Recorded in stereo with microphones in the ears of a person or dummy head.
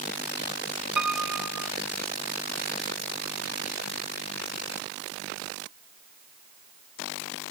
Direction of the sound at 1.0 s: 5° right (ahead or behind).